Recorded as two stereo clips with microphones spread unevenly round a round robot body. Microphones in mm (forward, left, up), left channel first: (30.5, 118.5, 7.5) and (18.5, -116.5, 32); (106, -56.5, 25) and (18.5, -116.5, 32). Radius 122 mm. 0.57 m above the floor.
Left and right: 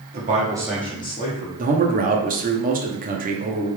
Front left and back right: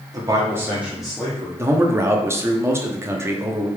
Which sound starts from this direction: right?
A man speaking, at 1.6 s.